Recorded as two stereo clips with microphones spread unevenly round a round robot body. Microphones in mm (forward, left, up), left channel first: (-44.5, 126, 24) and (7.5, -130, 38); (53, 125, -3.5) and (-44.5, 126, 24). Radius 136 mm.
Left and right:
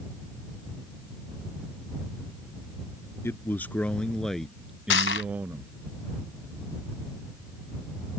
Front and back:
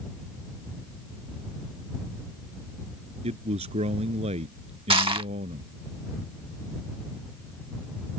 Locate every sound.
3.2 s a man speaking: 175° right; by 5.7 s 160° right
4.9 s crushing: 145° left